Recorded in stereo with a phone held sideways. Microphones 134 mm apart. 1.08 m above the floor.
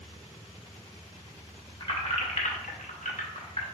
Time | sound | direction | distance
1.8 | keys jangling | 35° left (ahead or behind) | 1.0 m